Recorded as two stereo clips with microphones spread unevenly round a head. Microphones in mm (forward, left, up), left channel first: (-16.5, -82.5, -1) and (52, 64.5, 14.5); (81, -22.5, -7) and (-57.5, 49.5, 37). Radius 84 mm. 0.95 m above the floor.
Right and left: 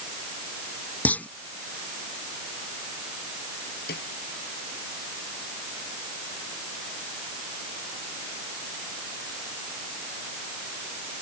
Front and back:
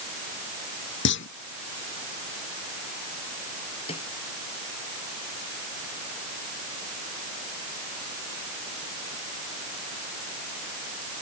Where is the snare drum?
85° right.